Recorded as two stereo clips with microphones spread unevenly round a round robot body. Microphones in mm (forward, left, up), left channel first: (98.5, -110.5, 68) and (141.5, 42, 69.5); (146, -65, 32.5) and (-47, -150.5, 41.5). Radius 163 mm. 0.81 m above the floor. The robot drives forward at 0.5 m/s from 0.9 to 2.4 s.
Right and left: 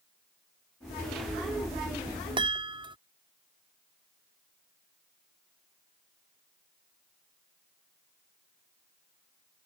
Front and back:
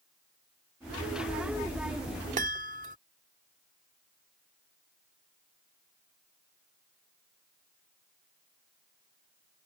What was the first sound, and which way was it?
A chime, 140° left.